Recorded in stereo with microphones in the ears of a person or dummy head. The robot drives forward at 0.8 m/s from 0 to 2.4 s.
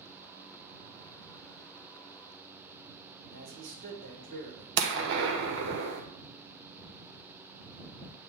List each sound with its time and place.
3.3 s a man speaking: 60° right (ahead or behind), 1.8 m
4.8 s a gunshot: 70° right (ahead or behind), 1.0 m